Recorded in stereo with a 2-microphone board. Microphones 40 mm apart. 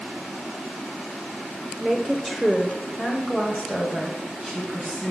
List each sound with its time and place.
1.8 s a woman speaking: 5° right (ahead or behind), 0.9 m; by 5.1 s 30° left (ahead or behind), 2 m